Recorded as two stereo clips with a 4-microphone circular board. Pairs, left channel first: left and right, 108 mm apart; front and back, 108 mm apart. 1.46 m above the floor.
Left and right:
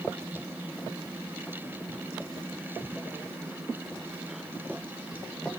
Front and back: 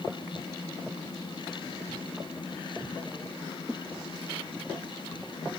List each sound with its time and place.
Only background noise.